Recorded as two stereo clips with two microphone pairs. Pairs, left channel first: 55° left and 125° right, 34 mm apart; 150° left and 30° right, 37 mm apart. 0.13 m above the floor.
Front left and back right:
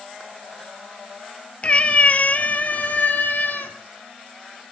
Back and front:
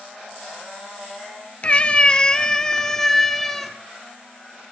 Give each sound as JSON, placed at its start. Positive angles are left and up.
{"t": 1.6, "sound": "a cat meowing", "azimuth_deg": 100, "distance_m": 0.9}